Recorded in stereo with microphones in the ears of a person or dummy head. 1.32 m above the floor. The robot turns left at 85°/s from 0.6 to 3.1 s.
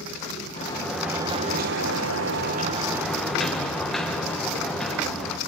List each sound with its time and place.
0.6 s a sliding door: 30° left, 1.4 m; by 5.4 s 175° left, 1.4 m